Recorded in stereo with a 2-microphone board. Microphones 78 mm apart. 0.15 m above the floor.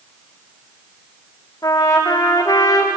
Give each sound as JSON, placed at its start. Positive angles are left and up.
{"t": 1.6, "sound": "a trumpet", "side_deg": 45, "distance_m": 5.5}